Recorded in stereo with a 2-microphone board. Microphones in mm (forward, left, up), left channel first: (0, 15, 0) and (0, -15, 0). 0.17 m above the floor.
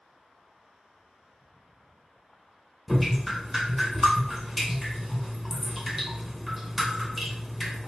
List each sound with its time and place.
2.9 s dripping: 5° right (ahead or behind), 1.1 m